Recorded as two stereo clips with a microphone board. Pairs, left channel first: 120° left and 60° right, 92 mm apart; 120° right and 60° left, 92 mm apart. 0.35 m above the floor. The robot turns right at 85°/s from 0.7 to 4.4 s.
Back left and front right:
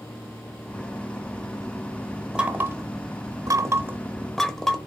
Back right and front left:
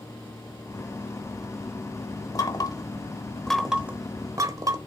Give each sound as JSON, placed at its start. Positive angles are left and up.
{"t": 2.4, "sound": "knocking", "azimuth_deg": -135, "distance_m": 0.9}